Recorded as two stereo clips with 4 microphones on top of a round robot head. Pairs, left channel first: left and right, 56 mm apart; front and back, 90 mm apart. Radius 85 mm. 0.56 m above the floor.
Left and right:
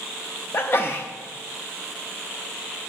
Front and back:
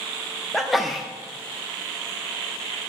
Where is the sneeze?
90° left, 0.8 m.